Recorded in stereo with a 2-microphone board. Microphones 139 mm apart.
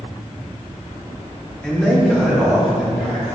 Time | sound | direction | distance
1.6 | a man speaking | 5° left (ahead or behind) | 1.1 m